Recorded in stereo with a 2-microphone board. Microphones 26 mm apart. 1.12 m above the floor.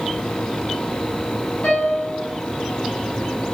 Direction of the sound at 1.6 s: 75° left (ahead or behind).